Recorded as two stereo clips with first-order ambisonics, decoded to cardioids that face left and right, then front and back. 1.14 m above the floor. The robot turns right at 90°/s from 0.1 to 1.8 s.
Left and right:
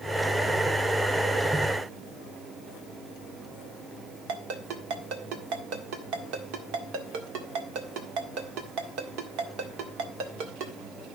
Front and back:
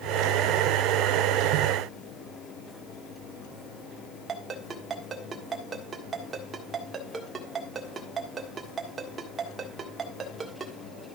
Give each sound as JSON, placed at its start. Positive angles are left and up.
{"t": 4.3, "sound": "a ringtone", "azimuth_deg": -110, "distance_m": 1.6}